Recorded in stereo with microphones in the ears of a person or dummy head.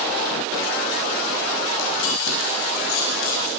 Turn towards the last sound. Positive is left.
turn(degrees=80)